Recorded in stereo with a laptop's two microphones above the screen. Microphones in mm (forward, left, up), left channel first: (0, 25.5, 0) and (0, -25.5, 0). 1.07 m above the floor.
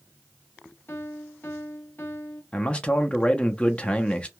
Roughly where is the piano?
Left.